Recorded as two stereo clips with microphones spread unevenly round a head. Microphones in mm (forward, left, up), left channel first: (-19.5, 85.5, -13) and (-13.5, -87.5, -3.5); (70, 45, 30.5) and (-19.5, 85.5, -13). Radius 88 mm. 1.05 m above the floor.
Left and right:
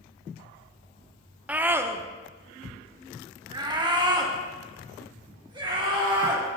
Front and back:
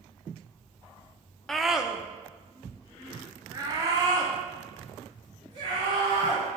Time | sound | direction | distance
1.5 | a scream | 170° right | 0.6 m